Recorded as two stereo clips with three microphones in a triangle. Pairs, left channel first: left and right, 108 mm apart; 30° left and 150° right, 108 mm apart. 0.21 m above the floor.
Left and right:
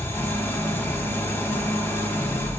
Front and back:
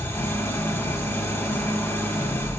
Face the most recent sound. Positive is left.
turn(degrees=55)